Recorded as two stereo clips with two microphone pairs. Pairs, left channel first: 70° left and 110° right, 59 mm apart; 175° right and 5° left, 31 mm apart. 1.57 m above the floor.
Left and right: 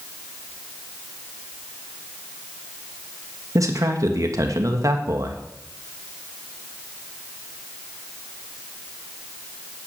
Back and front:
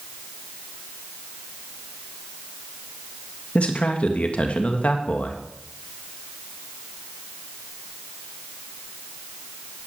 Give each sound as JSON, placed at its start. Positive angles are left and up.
{"t": 3.5, "sound": "a man speaking", "azimuth_deg": -135, "distance_m": 2.0}